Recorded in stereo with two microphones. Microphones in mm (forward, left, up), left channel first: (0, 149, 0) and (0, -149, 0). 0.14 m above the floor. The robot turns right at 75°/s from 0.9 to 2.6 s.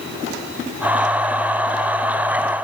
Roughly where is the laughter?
No laughter in this recording.